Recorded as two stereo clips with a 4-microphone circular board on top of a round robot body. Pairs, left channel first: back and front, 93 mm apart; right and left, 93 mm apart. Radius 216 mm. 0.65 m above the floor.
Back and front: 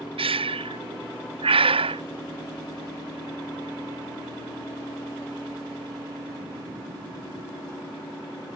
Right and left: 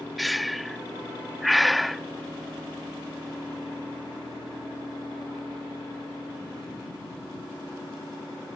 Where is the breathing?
Straight ahead.